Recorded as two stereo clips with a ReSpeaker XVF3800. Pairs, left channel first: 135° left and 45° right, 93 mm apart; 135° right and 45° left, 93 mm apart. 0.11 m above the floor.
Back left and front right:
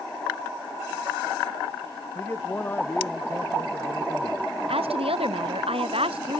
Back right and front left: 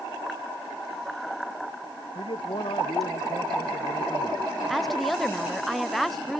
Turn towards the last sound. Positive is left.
turn(degrees=-45)